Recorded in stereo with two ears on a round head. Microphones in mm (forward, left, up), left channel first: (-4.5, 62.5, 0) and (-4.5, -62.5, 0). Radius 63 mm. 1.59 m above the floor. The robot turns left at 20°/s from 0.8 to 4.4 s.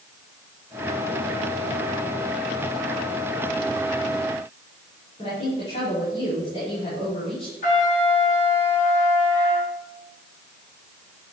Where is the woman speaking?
45° left (ahead or behind), 5.5 m.